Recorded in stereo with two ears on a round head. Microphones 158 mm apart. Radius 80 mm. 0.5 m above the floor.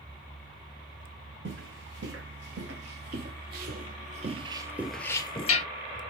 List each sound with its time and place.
1.4 s footsteps: 75° right (ahead or behind), 2.0 m; by 5.7 s 40° left (ahead or behind), 0.6 m